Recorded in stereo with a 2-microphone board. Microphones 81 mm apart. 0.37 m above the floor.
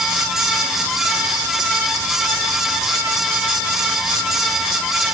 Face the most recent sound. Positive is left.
No sound to turn to.